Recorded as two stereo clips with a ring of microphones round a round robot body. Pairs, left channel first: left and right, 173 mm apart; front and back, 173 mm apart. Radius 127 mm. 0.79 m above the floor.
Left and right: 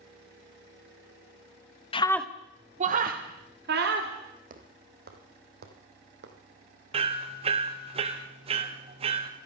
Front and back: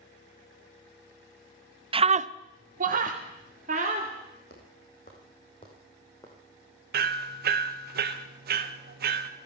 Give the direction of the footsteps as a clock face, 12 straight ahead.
2 o'clock.